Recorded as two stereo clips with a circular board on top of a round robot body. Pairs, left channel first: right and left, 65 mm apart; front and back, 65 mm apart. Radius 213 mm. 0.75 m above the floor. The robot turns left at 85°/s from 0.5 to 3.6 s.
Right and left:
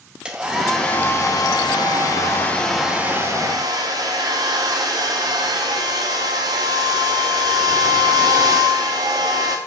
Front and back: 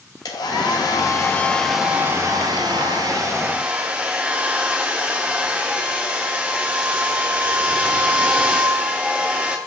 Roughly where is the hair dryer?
Ahead.